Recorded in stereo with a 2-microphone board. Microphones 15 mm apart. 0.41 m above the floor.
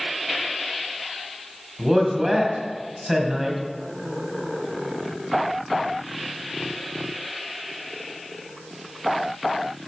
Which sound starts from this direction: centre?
A man speaking, at 1.8 s.